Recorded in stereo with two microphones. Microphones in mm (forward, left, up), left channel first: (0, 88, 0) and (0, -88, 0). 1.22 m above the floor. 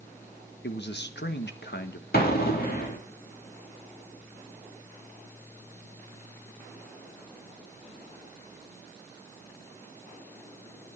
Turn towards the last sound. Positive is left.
turn(degrees=60)  # may be behind; listen again after turning